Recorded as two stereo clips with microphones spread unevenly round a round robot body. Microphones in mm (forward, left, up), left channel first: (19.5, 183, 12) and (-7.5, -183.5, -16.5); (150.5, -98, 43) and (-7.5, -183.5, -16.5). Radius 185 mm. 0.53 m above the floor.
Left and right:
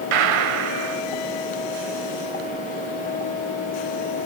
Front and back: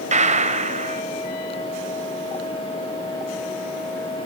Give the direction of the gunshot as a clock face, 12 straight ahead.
3 o'clock.